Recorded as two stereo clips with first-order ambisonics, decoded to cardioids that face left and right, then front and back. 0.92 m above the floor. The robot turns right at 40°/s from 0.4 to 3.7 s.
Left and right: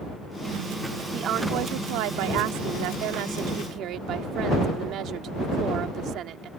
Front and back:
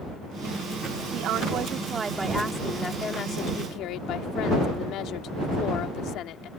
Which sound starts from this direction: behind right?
A woman speaking, at 1.1 s.